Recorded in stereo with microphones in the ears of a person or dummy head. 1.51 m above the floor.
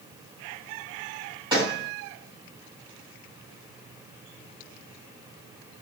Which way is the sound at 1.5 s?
25° right (ahead or behind).